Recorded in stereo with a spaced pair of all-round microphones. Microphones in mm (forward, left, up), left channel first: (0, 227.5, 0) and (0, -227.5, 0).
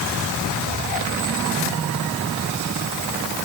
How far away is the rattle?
I don't hear a rattle.